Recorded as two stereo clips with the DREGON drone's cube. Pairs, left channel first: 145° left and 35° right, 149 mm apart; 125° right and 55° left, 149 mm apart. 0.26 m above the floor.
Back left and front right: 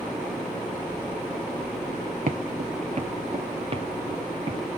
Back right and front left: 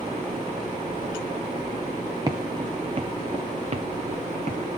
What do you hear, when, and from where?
2.3 s footsteps: 5° right, 0.9 m; by 4.8 s 20° left, 3 m